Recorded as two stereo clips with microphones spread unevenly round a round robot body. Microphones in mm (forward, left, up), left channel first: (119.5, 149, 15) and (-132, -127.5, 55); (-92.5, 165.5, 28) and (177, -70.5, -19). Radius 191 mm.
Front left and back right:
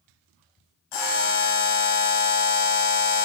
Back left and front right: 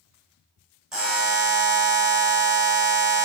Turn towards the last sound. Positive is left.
turn(degrees=45)